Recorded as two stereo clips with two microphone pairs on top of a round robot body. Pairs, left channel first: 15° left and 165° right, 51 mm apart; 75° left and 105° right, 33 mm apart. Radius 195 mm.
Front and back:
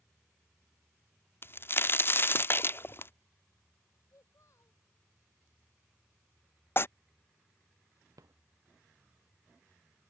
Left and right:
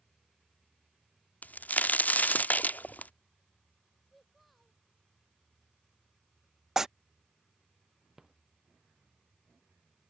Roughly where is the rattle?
Behind.